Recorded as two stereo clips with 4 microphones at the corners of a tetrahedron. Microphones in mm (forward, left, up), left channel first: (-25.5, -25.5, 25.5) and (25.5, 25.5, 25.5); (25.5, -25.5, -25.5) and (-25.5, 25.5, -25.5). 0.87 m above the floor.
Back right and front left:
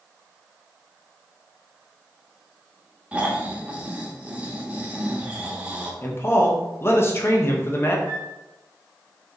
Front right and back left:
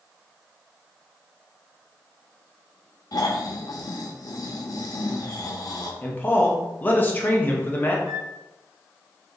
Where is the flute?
150° right, 2 m.